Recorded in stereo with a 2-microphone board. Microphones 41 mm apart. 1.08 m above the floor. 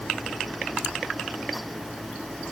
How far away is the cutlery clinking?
I don't hear cutlery clinking.